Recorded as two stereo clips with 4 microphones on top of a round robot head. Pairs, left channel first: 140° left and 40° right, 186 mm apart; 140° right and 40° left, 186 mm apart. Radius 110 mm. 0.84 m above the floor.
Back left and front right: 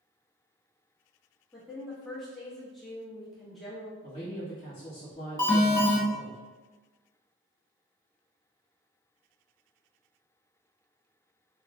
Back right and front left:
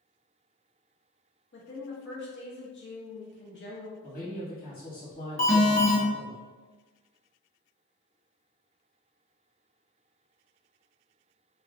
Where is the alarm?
160° right, 1.9 m.